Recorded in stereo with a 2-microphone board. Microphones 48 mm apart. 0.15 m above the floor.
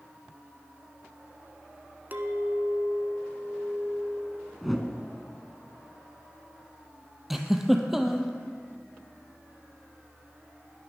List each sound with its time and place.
2.1 s a clink: 40° right (ahead or behind), 1.0 m
4.6 s a whoosh: centre (ahead or behind), 1.2 m
7.3 s a giggle: 5° right (ahead or behind), 1.2 m